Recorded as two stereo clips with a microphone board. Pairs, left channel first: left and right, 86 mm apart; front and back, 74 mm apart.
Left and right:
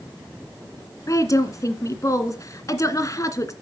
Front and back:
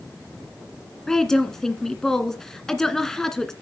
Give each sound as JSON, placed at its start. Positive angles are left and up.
{"t": 1.1, "sound": "a woman speaking", "azimuth_deg": 80, "distance_m": 1.9}